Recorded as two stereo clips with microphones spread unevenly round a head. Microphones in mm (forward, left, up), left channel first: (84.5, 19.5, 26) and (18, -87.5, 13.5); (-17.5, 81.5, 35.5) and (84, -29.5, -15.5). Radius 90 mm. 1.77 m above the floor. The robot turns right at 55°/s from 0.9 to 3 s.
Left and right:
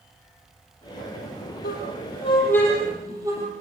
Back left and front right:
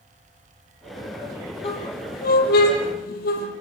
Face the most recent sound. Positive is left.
turn(degrees=160)